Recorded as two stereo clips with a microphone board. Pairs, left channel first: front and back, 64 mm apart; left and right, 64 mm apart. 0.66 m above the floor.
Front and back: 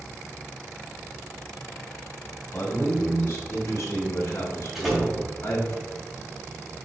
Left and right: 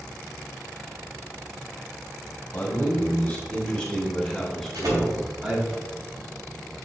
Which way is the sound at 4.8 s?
95° right.